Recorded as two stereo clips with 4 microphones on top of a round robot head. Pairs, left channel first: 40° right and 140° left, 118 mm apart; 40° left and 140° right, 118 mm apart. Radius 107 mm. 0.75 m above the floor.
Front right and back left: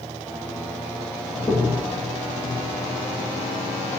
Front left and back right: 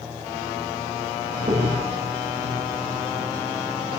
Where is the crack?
105° right, 4.5 m.